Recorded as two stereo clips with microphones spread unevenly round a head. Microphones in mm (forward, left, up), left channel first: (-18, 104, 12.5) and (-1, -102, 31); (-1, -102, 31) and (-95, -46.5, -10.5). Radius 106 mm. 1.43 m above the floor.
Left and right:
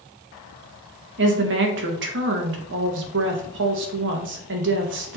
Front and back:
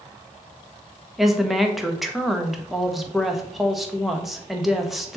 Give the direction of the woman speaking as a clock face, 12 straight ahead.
4 o'clock.